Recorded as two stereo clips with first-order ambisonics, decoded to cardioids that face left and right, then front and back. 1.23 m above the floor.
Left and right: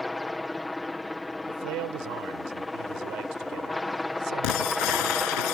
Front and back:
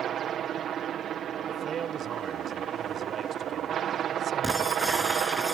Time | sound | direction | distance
0.0 | a helicopter | 170° left | ?
1.5 | a man speaking | 115° right | ?
4.4 | breaking glass | 85° left | ?